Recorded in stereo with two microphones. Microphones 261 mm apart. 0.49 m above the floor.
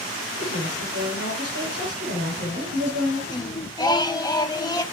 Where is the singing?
15° left (ahead or behind), 0.6 m.